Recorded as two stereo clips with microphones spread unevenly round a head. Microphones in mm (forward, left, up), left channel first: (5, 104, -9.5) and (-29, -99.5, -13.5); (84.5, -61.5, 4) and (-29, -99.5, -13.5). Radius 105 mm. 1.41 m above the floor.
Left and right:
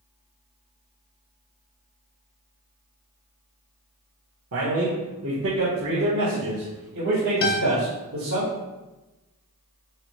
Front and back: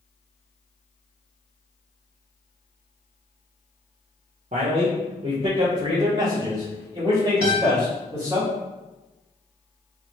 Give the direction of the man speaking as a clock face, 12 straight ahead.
4 o'clock.